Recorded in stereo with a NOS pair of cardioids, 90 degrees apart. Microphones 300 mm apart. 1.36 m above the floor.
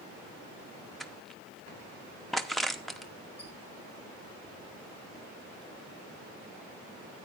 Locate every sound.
1.0 s crushing: straight ahead, 0.8 m
3.4 s a squeak: 55° left, 5.5 m